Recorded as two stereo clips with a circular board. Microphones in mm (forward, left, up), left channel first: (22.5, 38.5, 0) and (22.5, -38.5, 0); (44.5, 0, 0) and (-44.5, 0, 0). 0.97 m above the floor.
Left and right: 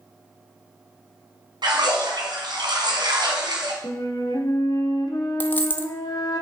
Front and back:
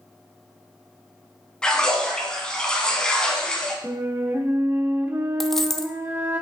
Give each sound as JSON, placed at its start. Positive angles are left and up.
{"t": 1.6, "sound": "a splash", "azimuth_deg": -80, "distance_m": 1.8}
{"t": 3.8, "sound": "a flute", "azimuth_deg": 115, "distance_m": 1.1}
{"t": 5.4, "sound": "a dropped coin", "azimuth_deg": 85, "distance_m": 0.6}